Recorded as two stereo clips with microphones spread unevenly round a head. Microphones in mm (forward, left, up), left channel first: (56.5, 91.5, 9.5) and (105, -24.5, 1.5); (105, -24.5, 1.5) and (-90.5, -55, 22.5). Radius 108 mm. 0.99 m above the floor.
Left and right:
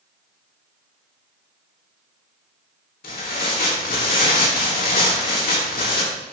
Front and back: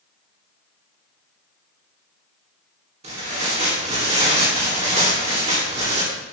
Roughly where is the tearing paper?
Behind left.